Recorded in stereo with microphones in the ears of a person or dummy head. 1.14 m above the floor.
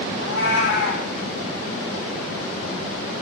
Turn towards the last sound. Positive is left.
turn(degrees=75)  # may be behind; listen again after turning